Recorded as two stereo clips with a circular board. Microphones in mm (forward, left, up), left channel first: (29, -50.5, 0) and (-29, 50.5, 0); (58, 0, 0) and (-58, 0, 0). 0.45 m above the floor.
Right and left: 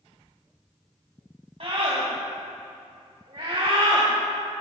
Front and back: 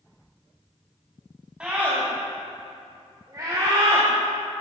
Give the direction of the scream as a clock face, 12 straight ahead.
9 o'clock.